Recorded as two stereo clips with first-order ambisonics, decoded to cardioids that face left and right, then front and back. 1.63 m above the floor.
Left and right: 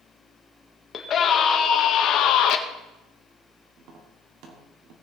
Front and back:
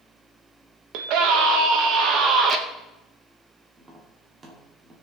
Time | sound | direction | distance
0.9 | a scream | 155° left | 1.7 m
3.8 | tapping | 115° right | 2.5 m